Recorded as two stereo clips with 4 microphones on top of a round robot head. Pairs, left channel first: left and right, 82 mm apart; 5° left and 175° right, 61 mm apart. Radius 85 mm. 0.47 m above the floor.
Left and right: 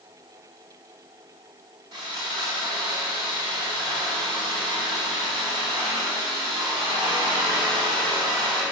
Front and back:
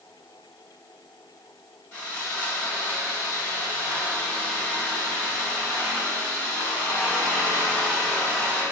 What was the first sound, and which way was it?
Sawing, 60° right.